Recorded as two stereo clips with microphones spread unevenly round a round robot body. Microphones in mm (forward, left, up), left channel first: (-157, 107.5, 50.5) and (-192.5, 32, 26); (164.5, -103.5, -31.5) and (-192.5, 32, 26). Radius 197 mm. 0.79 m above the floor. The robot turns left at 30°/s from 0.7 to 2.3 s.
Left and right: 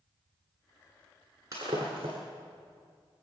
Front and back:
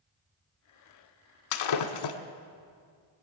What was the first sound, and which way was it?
Breaking glass, 30° right.